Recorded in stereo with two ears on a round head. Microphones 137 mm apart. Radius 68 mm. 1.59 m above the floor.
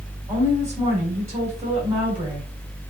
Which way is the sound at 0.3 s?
20° right (ahead or behind).